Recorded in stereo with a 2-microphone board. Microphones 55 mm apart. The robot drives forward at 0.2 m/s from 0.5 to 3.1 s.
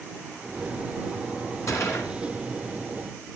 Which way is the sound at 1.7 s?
65° left (ahead or behind).